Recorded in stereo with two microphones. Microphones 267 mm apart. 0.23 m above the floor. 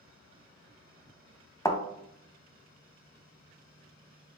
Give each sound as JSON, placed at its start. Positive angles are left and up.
{"t": 1.6, "sound": "a thud", "side_deg": 10, "distance_m": 0.5}